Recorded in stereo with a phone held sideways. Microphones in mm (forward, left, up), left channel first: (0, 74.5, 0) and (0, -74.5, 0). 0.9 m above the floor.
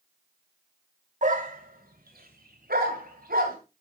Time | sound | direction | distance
1.2 | a dog barking | 55° right (ahead or behind) | 1.4 m